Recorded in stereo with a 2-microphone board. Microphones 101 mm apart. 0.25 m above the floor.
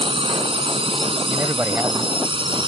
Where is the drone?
60° right (ahead or behind); by 2.7 s 50° right (ahead or behind).